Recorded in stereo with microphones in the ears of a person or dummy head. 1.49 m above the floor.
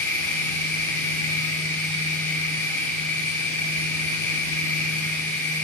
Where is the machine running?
10° left (ahead or behind), 1.1 m.